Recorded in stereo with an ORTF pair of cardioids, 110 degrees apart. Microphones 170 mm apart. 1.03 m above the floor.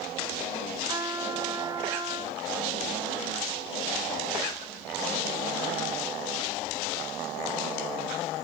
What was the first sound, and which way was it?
A trumpet, 30° right.